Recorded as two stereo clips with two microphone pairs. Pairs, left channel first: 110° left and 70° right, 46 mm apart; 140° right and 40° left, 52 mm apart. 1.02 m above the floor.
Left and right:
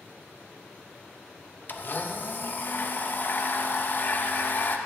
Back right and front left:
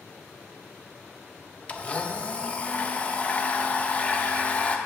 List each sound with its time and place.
1.7 s a blender: 155° left, 0.6 m